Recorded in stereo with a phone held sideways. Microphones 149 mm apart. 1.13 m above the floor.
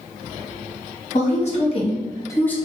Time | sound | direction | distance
1.1 | a woman speaking | 55° left (ahead or behind) | 1.0 m